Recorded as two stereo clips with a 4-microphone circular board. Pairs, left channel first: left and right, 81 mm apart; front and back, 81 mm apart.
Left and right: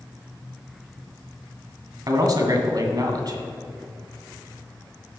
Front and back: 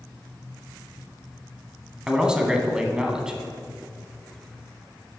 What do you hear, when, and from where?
2.1 s a man speaking: 105° right, 1.5 m